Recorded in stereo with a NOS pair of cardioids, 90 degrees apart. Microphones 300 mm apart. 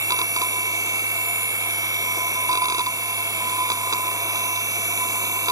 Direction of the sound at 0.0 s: 10° right.